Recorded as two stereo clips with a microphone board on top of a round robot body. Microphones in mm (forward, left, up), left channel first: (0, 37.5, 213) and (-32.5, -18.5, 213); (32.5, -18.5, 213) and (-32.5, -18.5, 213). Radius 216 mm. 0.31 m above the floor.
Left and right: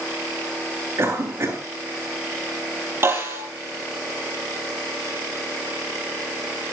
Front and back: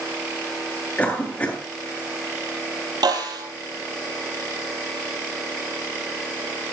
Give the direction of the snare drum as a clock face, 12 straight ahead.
6 o'clock.